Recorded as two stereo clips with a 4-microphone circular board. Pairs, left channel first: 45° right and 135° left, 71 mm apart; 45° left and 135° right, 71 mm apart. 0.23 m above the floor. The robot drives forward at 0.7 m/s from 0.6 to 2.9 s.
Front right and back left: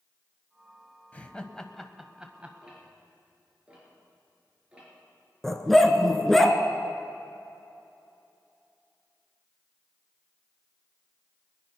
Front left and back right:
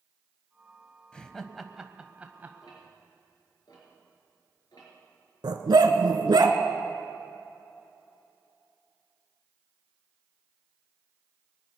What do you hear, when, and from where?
1.1 s laughter: 15° right, 1.0 m; by 2.5 s 170° right, 1.1 m
2.6 s ticking: 60° left, 4.5 m
5.4 s a dog barking: 130° right, 1.1 m